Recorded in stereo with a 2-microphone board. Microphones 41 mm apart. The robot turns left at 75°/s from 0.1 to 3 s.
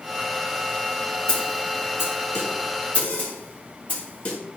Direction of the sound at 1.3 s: 20° left (ahead or behind).